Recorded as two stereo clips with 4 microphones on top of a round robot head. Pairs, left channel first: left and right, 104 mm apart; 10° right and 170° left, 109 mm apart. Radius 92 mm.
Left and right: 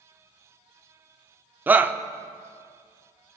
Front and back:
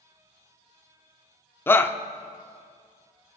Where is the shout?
45° right, 0.8 m.